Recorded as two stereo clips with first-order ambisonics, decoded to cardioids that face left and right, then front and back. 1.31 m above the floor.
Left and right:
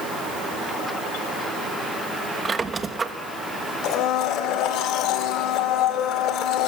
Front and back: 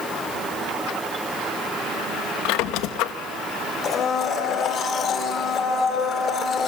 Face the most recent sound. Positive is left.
turn(degrees=55)